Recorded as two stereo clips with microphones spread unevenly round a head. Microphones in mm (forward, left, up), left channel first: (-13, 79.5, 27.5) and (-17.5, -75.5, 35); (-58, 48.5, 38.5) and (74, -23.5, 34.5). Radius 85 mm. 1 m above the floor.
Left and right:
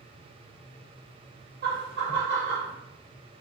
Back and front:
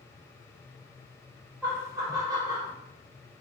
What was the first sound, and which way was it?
Laughter, 105° right.